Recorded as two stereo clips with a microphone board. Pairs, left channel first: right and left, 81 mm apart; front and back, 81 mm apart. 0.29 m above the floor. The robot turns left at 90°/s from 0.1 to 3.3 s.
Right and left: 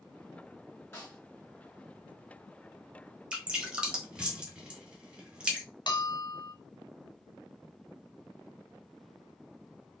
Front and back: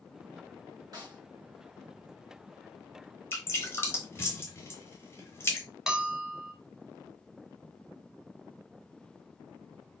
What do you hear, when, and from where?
0.9 s a snare drum: 145° right, 2 m; by 1.2 s 170° right, 2 m
3.3 s dripping: 25° left, 0.9 m
5.9 s a bell: 100° right, 0.7 m